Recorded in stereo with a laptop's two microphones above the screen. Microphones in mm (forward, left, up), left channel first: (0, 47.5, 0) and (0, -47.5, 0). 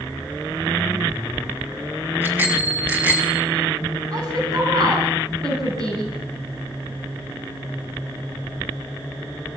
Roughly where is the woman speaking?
Right.